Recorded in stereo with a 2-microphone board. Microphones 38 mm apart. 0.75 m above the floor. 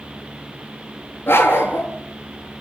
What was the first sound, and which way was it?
A dog barking, 80° left.